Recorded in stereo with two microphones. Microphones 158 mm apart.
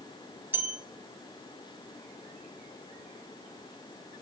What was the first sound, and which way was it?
A bell, 15° right (ahead or behind).